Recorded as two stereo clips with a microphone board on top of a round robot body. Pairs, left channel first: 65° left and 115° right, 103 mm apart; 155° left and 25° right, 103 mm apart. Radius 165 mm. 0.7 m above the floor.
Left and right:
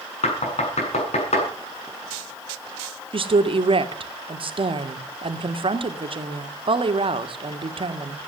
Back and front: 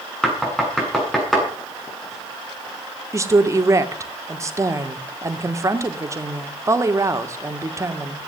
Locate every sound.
0.2 s knocking: 70° left, 8 m
3.1 s a woman speaking: 85° right, 2 m